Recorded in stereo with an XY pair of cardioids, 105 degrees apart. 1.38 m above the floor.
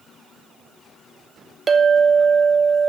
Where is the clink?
40° right, 0.9 m.